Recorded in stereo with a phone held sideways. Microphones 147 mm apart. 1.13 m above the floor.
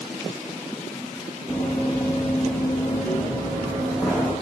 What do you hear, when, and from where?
1.5 s running footsteps: 5° left (ahead or behind), 2.5 m; by 4.3 s 10° left (ahead or behind), 3.5 m